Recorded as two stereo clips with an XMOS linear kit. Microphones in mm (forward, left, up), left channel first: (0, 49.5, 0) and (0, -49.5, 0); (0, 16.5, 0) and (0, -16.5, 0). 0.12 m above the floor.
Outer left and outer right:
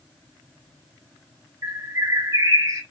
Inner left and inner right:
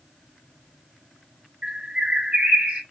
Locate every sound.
1.6 s a bird: 30° right (ahead or behind), 2.0 m